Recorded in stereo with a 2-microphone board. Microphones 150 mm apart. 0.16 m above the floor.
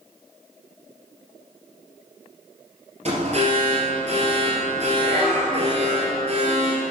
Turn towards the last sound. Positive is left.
turn(degrees=-45)  # may be behind; listen again after turning